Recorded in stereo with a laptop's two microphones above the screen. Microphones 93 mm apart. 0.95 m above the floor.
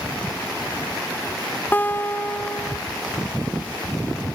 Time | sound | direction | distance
1.7 | a guitar | 20° left (ahead or behind) | 0.5 m